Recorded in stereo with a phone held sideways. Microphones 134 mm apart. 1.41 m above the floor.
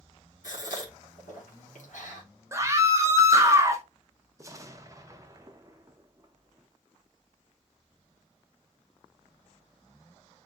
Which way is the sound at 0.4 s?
70° left (ahead or behind).